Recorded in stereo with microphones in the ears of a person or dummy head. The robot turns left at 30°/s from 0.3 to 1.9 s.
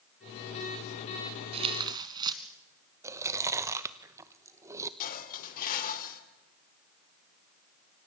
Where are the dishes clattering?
45° left (ahead or behind), 2.5 m.